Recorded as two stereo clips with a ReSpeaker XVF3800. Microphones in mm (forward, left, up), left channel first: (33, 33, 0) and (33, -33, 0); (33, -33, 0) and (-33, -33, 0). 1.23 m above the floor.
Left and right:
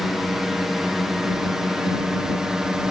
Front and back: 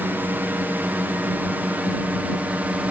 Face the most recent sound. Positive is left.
turn(degrees=-160)